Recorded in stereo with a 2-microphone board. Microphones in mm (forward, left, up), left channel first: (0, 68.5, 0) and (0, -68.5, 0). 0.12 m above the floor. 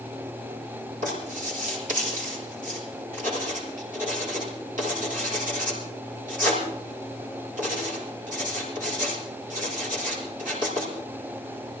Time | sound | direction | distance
1.0 | writing | 70° right (ahead or behind) | 7 m